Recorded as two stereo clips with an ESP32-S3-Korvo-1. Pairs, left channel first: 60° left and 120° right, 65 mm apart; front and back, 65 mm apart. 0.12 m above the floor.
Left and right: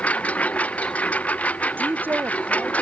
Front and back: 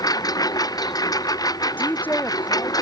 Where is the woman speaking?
65° right.